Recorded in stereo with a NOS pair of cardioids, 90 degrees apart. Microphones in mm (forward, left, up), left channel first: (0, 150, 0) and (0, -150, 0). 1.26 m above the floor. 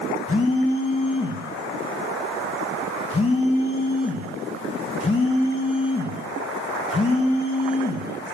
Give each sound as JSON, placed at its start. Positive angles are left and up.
{"t": 0.3, "sound": "a phone buzzing", "azimuth_deg": 20, "distance_m": 1.7}